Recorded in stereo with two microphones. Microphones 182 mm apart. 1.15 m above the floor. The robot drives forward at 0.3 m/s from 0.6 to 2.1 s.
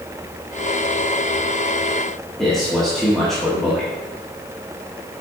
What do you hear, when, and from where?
2.4 s a man speaking: centre (ahead or behind), 1.2 m